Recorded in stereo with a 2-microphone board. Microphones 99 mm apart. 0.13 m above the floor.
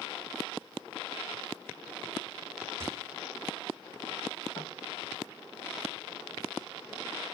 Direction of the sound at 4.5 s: 40° left (ahead or behind).